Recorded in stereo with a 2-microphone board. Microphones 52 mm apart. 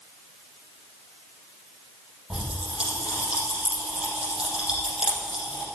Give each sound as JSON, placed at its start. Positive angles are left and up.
{"t": 2.3, "sound": "a pop", "side_deg": -20, "distance_m": 5.0}